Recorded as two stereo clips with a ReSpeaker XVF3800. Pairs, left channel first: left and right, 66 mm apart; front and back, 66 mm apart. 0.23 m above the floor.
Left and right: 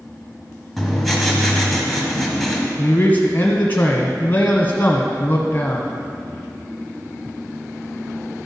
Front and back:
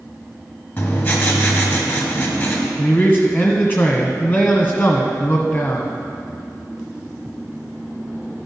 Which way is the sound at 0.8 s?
Straight ahead.